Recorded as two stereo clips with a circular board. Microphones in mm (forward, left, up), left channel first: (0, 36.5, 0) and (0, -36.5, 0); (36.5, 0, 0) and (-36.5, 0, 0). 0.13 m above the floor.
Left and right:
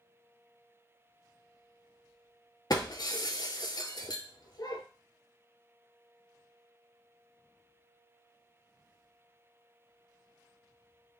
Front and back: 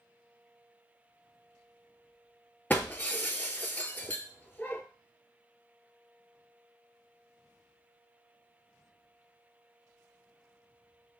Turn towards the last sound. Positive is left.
turn(degrees=65)